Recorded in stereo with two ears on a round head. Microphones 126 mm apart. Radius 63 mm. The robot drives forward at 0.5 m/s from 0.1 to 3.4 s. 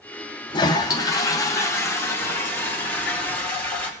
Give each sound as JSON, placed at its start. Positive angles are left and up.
{"t": 0.5, "sound": "a toilet flushing", "side_deg": 30, "distance_m": 0.9}